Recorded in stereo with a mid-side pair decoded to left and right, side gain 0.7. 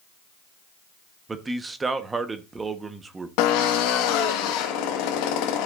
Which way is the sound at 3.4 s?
70° left.